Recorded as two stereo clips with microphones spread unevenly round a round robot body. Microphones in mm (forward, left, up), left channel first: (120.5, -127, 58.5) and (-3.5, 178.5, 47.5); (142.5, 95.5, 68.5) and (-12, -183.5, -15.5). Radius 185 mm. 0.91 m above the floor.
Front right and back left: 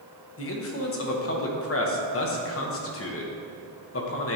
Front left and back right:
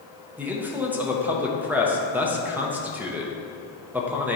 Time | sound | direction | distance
0.4 | a man speaking | 55° right | 1.0 m